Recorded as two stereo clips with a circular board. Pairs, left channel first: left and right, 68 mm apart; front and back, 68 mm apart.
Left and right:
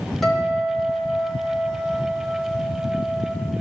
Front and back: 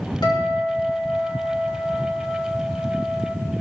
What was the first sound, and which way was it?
A guitar, straight ahead.